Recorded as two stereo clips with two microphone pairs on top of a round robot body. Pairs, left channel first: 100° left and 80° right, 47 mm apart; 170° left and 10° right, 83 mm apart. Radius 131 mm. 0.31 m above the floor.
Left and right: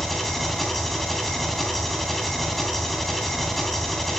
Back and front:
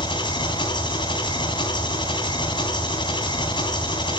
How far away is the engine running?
About 3 m.